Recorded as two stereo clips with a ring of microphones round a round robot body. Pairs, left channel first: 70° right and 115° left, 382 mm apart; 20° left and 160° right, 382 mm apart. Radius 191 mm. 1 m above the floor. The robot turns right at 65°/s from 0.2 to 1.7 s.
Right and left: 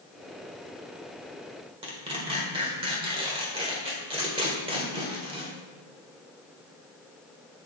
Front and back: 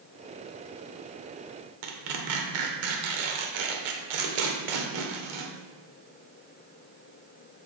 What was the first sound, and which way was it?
Tearing paper, 170° right.